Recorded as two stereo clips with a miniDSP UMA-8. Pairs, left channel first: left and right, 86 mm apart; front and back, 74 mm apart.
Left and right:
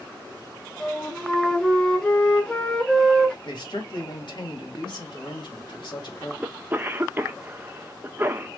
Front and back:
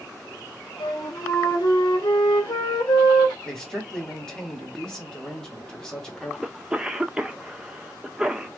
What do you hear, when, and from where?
0.8 s a flute: 10° left, 1.1 m
3.5 s a man speaking: 80° left, 2 m
6.4 s a cough: 115° right, 0.5 m